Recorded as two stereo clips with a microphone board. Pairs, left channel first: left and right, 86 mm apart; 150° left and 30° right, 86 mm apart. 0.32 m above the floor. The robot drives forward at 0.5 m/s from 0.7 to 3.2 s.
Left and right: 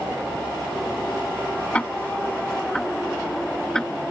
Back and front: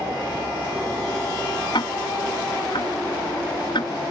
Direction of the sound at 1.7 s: 165° left.